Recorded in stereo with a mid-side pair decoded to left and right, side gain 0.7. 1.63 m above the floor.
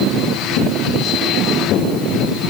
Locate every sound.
Only background noise.